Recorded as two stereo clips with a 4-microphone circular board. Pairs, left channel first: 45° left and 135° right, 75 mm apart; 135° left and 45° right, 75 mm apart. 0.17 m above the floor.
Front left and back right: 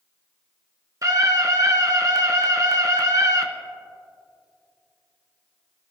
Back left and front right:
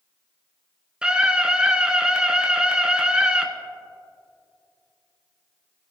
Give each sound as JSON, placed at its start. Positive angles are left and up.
{"t": 1.0, "sound": "a scream", "azimuth_deg": -115, "distance_m": 1.6}